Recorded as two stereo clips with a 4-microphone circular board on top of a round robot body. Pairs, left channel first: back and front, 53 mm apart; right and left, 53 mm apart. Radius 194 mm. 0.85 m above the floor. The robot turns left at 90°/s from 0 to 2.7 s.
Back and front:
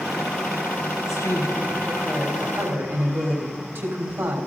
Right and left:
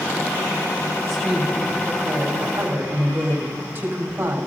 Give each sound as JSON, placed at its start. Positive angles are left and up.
{"t": 1.0, "sound": "a woman speaking", "azimuth_deg": -175, "distance_m": 4.0}